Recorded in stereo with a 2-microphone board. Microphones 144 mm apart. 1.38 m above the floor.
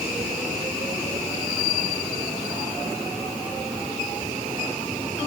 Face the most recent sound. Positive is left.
No sound to turn to.